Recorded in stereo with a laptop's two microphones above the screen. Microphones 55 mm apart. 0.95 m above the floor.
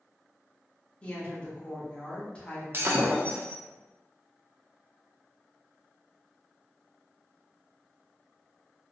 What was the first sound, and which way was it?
A woman speaking, 20° left (ahead or behind).